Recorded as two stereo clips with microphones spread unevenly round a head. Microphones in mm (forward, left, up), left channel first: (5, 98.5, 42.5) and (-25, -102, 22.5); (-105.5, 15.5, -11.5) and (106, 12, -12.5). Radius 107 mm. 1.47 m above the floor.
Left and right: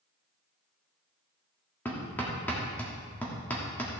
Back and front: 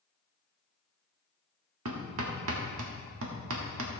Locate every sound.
1.9 s hammering: straight ahead, 1.7 m